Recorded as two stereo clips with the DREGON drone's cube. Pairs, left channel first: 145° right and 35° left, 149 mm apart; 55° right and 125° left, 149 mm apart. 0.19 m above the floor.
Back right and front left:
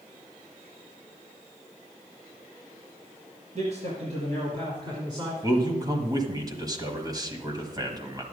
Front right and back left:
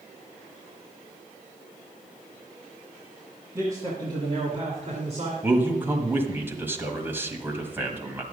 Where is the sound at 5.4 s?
65° left, 1.3 m.